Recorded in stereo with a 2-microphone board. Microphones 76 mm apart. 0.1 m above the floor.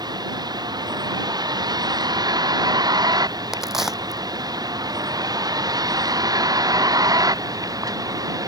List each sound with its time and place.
0.0 s a vehicle: 65° right (ahead or behind); by 8.5 s 55° right (ahead or behind)
3.5 s a crack: 5° right (ahead or behind)